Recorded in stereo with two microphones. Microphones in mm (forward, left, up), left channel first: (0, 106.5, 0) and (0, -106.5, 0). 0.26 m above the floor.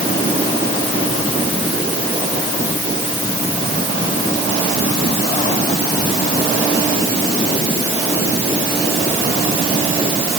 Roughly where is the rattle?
I don't hear a rattle.